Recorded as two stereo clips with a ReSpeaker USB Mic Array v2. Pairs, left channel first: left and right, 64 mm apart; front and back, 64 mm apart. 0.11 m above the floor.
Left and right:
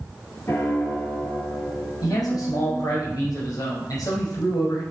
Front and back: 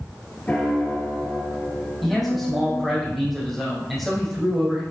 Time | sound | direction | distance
0.5 | a piano | 60° left | 2.5 m
2.0 | a man speaking | 85° left | 4.5 m